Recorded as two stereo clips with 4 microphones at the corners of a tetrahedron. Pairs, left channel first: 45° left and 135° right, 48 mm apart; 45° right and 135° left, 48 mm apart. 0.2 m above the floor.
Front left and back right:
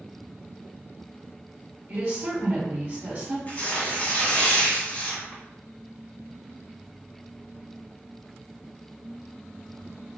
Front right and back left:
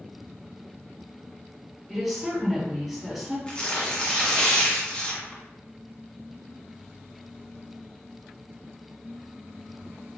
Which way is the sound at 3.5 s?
10° left.